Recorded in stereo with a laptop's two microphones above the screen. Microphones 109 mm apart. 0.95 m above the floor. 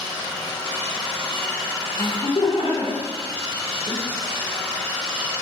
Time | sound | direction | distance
2.0 | laughter | 55° left (ahead or behind) | 0.9 m